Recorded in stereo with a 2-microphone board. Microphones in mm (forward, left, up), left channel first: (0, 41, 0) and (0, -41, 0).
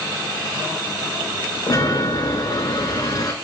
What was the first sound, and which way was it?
A chime, 50° left (ahead or behind).